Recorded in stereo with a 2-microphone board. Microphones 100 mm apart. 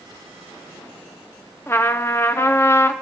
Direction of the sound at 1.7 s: 25° left (ahead or behind).